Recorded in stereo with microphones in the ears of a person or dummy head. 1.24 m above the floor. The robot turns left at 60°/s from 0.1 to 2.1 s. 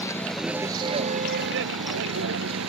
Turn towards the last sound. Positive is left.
turn(degrees=-100)